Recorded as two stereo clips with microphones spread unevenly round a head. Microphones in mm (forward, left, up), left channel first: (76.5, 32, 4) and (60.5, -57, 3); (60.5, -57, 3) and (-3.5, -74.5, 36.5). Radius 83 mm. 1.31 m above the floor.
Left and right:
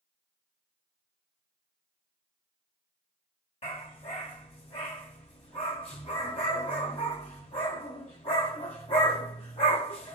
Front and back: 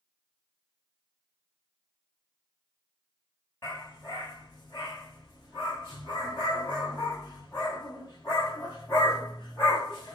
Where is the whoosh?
I don't hear a whoosh.